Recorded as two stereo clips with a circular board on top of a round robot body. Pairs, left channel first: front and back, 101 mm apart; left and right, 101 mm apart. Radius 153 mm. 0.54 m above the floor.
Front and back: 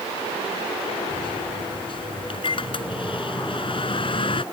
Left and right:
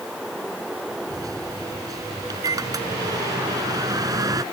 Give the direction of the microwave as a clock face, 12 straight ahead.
1 o'clock.